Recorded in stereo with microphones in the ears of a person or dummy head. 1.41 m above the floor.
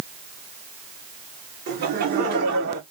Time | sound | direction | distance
1.7 | laughter | 60° right (ahead or behind) | 2.5 m